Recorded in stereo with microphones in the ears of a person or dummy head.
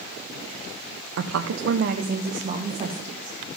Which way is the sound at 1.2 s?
65° right (ahead or behind).